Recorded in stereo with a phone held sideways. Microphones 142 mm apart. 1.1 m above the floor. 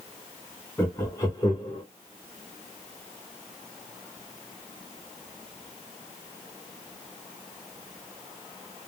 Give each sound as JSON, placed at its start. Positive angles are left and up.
{"t": 0.8, "sound": "laughter", "side_deg": 15, "distance_m": 0.9}